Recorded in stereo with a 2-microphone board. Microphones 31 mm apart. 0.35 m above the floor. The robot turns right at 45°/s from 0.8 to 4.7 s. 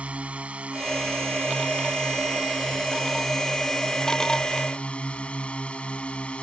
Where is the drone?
130° right; by 6.4 s 45° left.